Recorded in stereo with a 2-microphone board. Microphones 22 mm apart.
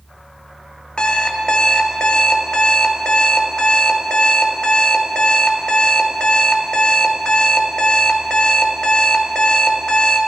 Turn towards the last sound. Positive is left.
turn(degrees=45)  # may be behind; listen again after turning